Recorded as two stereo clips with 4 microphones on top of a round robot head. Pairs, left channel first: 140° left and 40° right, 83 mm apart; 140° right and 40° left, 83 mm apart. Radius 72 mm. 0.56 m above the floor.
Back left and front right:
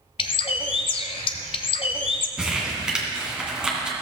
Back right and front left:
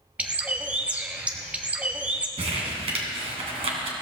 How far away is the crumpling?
About 2.5 m.